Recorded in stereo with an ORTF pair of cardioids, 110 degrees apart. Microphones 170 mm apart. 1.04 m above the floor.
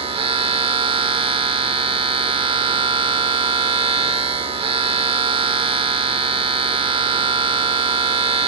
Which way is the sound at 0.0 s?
35° right.